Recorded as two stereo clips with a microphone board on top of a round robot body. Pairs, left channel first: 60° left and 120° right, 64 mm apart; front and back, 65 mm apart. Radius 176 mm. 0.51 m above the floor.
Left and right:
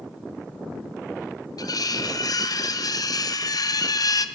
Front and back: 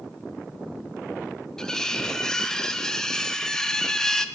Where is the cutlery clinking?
80° left, 1.2 m.